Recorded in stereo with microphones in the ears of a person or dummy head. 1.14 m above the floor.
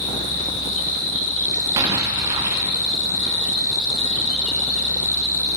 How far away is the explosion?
About 0.8 m.